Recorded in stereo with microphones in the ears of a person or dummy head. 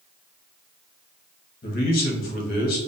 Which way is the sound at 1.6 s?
50° left (ahead or behind).